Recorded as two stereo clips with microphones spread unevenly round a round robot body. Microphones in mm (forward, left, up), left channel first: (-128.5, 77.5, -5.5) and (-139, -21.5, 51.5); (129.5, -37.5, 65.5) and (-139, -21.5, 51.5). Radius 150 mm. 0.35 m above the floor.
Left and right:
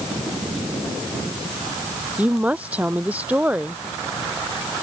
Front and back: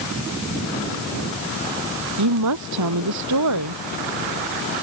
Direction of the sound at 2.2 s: 170° right.